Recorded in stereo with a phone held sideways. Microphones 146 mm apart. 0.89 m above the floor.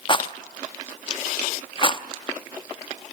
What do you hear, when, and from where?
0.1 s a rattle: 35° left (ahead or behind), 0.6 m